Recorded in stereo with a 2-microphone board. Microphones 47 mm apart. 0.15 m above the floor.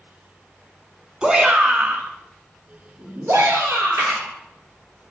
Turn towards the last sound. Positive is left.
turn(degrees=-65)  # may be behind; listen again after turning